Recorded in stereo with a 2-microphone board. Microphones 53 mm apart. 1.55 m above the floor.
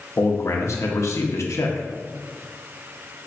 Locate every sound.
0.2 s a man speaking: 65° left (ahead or behind), 0.6 m